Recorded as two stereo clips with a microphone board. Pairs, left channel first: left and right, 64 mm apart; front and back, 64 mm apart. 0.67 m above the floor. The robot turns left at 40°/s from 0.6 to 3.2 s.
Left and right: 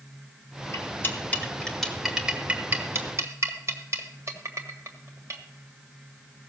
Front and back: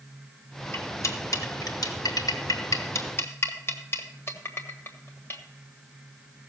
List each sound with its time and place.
0.7 s cutlery clinking: 50° left, 1.5 m; by 5.4 s 50° right, 1.5 m